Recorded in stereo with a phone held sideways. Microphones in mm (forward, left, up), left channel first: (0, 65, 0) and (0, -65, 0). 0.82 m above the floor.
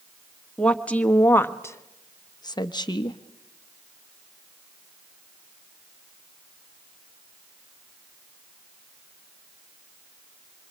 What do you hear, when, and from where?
0.6 s a woman speaking: 10° left (ahead or behind), 1.4 m; by 3.2 s 35° left (ahead or behind), 0.9 m